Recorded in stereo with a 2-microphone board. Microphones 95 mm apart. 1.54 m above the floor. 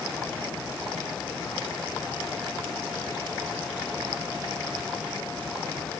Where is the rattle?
I don't hear a rattle.